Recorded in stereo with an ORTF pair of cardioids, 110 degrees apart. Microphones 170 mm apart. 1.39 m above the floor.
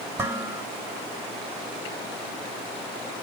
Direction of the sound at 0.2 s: 10° right.